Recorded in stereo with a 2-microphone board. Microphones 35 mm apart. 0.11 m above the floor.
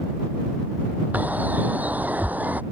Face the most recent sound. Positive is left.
turn(degrees=-50)  # may be behind; listen again after turning